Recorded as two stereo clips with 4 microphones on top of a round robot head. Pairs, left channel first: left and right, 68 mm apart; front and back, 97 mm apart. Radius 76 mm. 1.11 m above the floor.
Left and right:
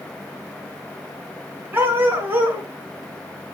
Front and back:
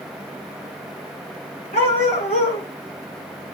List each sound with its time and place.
1.7 s a dog barking: 30° right, 3.5 m